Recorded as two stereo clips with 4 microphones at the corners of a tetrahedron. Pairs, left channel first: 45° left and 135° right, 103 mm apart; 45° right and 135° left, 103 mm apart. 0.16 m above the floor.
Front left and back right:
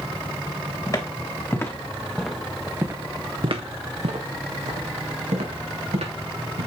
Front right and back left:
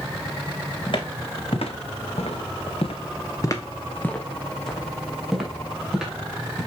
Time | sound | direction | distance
0.9 | footsteps | 10° right | 2.5 m